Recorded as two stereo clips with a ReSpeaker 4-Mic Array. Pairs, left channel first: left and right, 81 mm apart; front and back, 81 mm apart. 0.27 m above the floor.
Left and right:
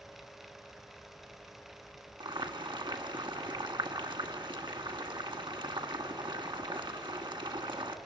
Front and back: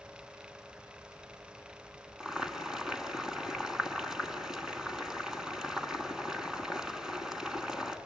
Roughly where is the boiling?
Right.